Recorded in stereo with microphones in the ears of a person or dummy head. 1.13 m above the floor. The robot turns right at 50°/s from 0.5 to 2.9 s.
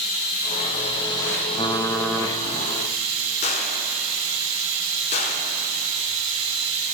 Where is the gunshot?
35° left (ahead or behind), 0.9 m.